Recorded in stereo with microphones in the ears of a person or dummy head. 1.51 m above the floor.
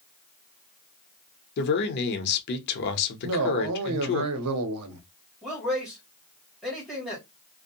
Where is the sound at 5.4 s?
Centre (ahead or behind), 1.3 m.